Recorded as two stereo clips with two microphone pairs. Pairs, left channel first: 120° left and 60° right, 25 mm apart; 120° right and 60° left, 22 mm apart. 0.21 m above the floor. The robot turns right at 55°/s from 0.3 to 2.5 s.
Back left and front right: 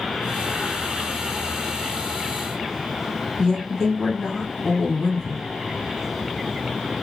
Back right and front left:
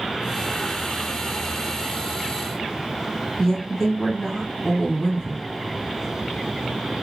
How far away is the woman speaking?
About 1.1 m.